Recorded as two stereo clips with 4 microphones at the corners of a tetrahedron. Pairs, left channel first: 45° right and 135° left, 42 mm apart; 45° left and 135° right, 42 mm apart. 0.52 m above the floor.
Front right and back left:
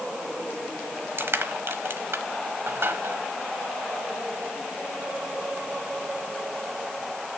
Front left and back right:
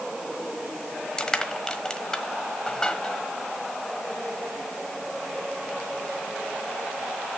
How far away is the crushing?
About 1.3 m.